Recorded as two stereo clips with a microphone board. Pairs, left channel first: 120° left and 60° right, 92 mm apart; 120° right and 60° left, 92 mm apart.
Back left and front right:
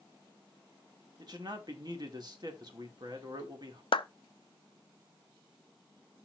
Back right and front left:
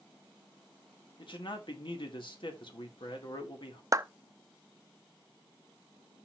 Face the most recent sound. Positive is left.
turn(degrees=110)